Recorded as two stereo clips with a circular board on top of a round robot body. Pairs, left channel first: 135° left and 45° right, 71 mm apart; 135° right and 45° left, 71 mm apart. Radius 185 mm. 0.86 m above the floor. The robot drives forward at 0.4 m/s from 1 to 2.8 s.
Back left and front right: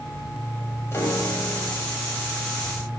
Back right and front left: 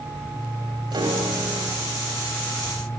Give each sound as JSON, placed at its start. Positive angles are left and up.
{"t": 0.9, "sound": "a piano", "azimuth_deg": 75, "distance_m": 2.0}